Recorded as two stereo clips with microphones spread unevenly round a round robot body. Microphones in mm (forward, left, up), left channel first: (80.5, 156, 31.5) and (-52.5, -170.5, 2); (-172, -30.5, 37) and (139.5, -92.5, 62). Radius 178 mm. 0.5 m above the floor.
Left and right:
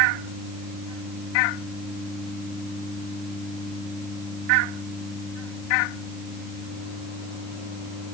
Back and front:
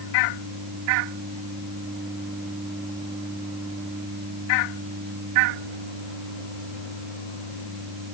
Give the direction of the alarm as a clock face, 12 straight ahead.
No alarm in this recording.